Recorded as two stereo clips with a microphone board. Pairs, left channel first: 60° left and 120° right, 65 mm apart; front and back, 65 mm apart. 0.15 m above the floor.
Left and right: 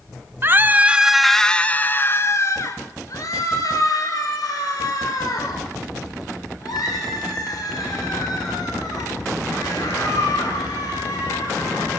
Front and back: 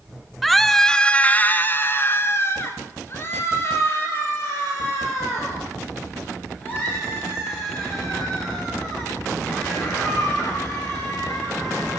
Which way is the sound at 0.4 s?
90° right.